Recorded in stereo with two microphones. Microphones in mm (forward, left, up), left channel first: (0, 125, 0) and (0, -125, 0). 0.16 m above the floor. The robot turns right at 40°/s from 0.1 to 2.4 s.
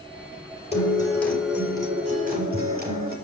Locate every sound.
0.7 s a guitar: 155° left, 4 m; by 3.1 s 140° right, 4 m